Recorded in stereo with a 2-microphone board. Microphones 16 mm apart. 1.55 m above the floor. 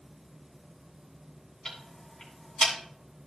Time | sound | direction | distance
1.6 | ticking | 30° left (ahead or behind) | 3 m